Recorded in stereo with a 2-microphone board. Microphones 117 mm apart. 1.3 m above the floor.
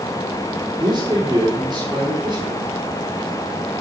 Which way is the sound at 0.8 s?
30° right (ahead or behind).